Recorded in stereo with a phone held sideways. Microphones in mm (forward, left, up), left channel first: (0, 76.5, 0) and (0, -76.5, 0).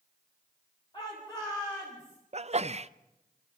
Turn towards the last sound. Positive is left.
turn(degrees=-45)  # may be behind; listen again after turning